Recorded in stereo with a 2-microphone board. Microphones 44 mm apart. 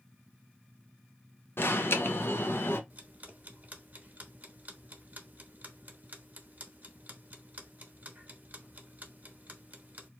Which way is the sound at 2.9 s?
35° right (ahead or behind).